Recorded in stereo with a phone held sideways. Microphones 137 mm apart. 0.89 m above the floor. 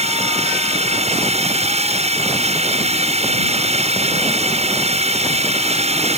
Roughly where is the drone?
Right.